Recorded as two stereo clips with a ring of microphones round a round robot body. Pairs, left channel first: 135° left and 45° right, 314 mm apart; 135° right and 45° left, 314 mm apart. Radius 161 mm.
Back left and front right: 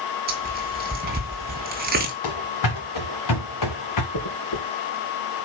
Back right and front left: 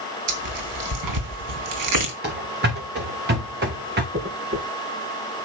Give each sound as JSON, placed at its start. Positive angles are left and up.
{"t": 0.3, "sound": "tearing paper", "azimuth_deg": 15, "distance_m": 3.0}
{"t": 2.2, "sound": "running footsteps", "azimuth_deg": 105, "distance_m": 3.5}
{"t": 4.1, "sound": "a dropped coin", "azimuth_deg": 105, "distance_m": 4.0}